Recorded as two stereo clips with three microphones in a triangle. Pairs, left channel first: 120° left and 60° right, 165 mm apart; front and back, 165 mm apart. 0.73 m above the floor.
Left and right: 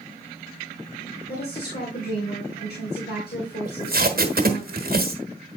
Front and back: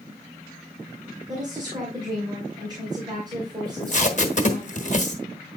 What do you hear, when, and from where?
1.3 s a woman speaking: 115° left, 2.5 m
3.6 s tape being pulled: 40° right, 1.2 m